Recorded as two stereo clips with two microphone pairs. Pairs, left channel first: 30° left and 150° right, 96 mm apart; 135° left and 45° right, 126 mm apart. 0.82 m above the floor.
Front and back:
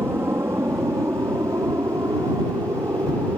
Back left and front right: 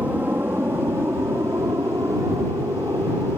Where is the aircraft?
110° right; by 3.4 s 100° right.